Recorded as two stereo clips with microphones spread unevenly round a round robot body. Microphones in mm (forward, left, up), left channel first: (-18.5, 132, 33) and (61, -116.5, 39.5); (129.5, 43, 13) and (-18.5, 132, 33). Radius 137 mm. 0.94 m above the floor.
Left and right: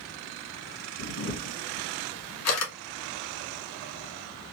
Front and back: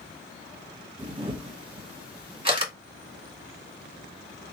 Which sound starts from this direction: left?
A camera shutter, at 1.0 s.